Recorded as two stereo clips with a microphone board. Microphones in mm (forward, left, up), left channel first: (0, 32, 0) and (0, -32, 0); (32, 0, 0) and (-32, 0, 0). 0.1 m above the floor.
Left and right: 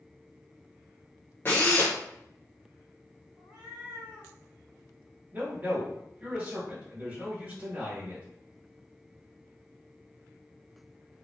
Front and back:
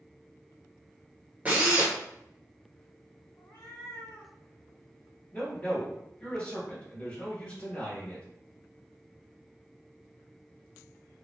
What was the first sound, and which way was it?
A drill, 130° left.